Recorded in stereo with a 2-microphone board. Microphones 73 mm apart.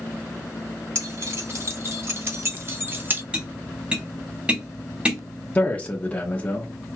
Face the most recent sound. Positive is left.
turn(degrees=20)  # may be behind; listen again after turning